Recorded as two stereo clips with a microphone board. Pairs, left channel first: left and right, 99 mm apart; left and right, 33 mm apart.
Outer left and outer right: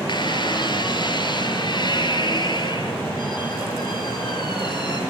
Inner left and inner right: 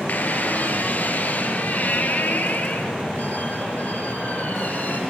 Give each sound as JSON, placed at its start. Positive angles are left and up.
{"t": 0.1, "sound": "a squeak", "side_deg": 50, "distance_m": 4.5}